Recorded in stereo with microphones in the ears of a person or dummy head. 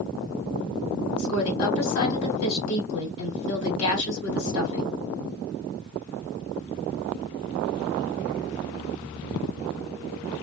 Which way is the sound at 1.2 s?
90° left.